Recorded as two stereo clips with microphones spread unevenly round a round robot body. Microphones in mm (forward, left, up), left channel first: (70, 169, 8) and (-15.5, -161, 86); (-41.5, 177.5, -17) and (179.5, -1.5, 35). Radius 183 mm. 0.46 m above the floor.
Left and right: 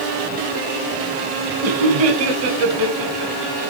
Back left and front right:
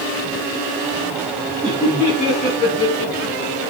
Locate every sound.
1.6 s laughter: 120° right, 4 m; by 3.7 s 155° right, 5 m